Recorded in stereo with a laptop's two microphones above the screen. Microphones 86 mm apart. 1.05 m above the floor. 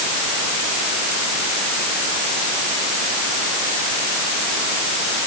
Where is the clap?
No clap in this recording.